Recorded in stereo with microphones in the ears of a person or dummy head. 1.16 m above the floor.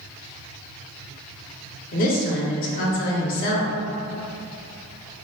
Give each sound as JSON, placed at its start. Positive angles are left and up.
{"t": 1.9, "sound": "a woman speaking", "side_deg": 45, "distance_m": 0.5}